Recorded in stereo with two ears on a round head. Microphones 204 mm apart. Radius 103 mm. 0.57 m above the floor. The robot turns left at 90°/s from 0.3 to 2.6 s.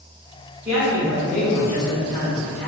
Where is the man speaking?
160° right, 1.7 m; by 2.7 s 25° left, 1.7 m.